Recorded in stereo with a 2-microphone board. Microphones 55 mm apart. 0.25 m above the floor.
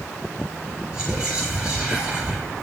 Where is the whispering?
20° right (ahead or behind), 4 m.